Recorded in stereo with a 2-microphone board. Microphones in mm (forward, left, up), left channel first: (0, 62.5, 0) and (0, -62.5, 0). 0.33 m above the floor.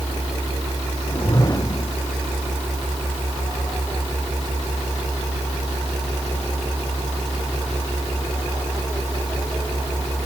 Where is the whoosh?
30° left (ahead or behind).